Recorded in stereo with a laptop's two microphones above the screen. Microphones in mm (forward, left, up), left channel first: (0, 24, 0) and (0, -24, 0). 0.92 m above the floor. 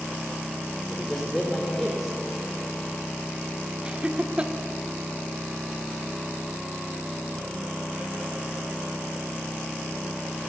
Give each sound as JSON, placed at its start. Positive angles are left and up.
{"t": 0.9, "sound": "a man speaking", "side_deg": -5, "distance_m": 4.0}
{"t": 3.9, "sound": "laughter", "side_deg": -25, "distance_m": 1.9}